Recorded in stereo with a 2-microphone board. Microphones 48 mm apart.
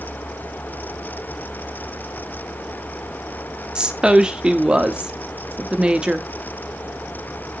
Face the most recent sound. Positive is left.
turn(degrees=-15)  # may be behind; listen again after turning